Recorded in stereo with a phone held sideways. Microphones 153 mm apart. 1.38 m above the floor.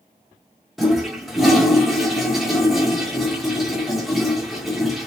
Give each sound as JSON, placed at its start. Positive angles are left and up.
{"t": 0.8, "sound": "a toilet flushing", "side_deg": 0, "distance_m": 0.8}